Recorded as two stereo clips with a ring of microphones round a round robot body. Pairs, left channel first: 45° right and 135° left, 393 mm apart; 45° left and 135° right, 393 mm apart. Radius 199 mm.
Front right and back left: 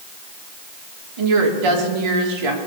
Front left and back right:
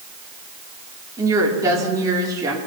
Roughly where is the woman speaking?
Behind left.